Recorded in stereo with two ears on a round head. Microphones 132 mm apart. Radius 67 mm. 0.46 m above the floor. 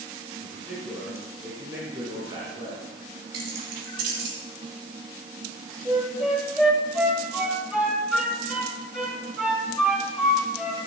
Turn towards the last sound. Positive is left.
turn(degrees=-5)  # may be behind; listen again after turning